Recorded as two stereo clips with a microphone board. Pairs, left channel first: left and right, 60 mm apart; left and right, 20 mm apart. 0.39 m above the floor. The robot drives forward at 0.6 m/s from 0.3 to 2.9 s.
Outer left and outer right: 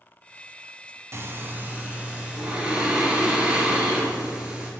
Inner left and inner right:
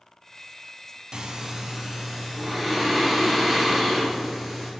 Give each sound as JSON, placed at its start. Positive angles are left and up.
{"t": 1.1, "sound": "breathing", "side_deg": -45, "distance_m": 0.6}